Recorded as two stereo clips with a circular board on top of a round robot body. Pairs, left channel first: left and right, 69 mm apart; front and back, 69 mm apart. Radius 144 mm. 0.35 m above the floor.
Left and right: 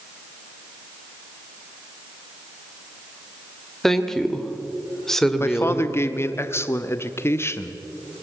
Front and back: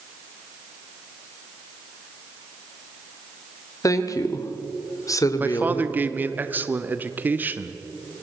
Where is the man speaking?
125° left, 1.1 m.